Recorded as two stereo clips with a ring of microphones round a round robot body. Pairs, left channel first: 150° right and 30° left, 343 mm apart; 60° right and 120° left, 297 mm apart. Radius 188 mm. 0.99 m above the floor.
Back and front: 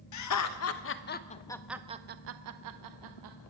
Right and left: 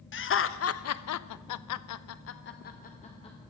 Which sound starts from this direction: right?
Laughter, at 0.1 s.